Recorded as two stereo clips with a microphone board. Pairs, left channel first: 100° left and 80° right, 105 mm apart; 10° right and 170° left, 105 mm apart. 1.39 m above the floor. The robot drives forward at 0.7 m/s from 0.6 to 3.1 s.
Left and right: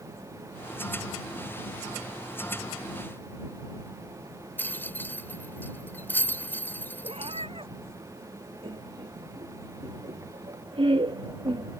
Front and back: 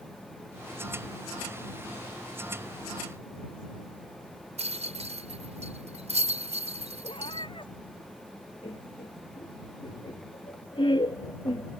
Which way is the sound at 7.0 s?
50° right.